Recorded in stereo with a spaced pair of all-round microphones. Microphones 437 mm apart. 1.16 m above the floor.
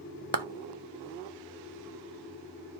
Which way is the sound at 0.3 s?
65° right (ahead or behind).